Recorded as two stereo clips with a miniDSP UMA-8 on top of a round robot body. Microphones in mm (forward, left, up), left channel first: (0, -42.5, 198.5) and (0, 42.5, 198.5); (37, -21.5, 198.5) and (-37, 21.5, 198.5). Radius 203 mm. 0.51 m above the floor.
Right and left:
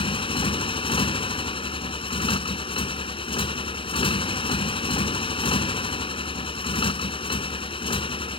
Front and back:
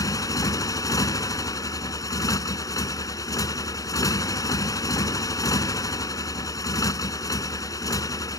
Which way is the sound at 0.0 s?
80° right.